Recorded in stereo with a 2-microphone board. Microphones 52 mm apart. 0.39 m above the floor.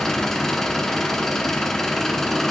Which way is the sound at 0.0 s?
10° left (ahead or behind).